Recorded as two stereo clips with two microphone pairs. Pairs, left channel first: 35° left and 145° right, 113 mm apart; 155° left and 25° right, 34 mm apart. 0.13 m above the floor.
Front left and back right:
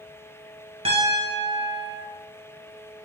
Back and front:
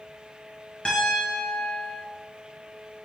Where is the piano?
155° right, 1.3 m.